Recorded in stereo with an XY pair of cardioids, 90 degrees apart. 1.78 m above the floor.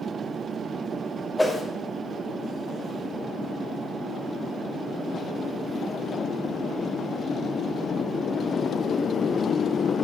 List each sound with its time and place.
1.4 s a whoosh: 10° left, 3 m